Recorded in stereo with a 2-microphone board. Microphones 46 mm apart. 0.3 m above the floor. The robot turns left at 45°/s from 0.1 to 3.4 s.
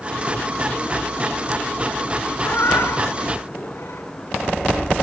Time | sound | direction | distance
2.4 | a cat meowing | 55° left (ahead or behind) | 3 m